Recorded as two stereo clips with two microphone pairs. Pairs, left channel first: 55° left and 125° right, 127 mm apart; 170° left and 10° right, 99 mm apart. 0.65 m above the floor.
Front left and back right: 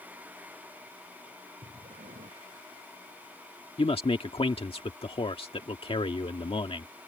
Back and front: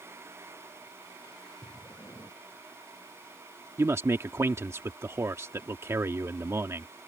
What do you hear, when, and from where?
1.6 s breathing: 130° right
3.8 s a man speaking: 45° left